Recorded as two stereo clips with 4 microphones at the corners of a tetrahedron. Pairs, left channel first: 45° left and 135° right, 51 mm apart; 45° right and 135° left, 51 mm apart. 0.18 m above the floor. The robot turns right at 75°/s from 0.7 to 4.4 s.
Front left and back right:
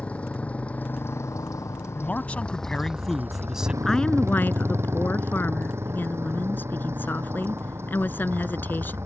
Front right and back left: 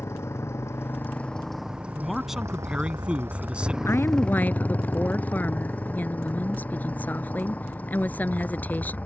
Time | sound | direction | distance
0.0 | a motorcycle | 20° right | ?
2.0 | a man speaking | 40° left | ?
3.8 | a woman speaking | 40° right | ?